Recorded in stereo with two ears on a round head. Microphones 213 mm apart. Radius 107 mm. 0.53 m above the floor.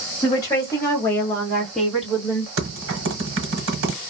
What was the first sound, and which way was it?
A woman speaking, 15° left (ahead or behind).